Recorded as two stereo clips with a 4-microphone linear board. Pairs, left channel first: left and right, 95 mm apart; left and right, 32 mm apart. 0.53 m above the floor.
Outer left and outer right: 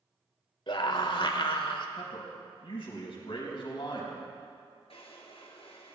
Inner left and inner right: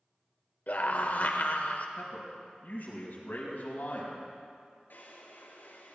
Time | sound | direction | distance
0.7 | a scream | 55° left (ahead or behind) | 1.6 m
2.0 | a man speaking | 60° left (ahead or behind) | 4.5 m
4.9 | a drawer | 70° left (ahead or behind) | 2 m